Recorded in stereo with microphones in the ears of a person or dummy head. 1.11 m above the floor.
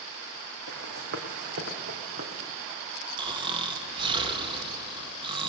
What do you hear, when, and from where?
0.7 s running footsteps: 55° right (ahead or behind), 3.5 m; by 2.5 s 35° right (ahead or behind), 3.5 m
3.2 s snoring: 25° right (ahead or behind), 2.0 m